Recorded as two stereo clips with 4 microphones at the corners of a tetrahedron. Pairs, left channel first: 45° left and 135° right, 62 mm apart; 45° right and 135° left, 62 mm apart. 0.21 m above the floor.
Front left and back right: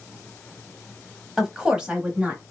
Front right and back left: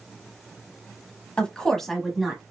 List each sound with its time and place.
1.4 s a woman speaking: 70° right, 1.1 m; by 2.4 s 155° right, 1.1 m